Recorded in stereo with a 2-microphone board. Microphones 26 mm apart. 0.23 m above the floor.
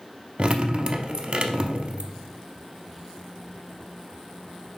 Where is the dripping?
45° right (ahead or behind), 0.5 m.